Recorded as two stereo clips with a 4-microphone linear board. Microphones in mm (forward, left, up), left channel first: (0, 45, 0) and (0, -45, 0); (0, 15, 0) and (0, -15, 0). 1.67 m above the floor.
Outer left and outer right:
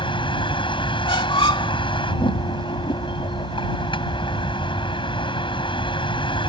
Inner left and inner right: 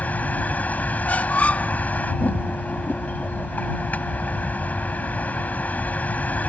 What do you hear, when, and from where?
0.0 s a vehicle: 65° left (ahead or behind)
1.1 s a squeak: 65° left (ahead or behind)